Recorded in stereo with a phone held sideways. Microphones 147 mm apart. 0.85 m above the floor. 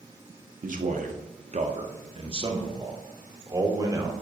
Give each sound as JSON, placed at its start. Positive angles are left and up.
{"t": 0.6, "sound": "a man speaking", "side_deg": -65, "distance_m": 1.3}